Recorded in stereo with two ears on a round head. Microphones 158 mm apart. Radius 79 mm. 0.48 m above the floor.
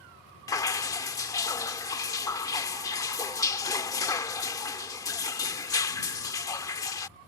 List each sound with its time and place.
0.5 s dripping: 20° left (ahead or behind)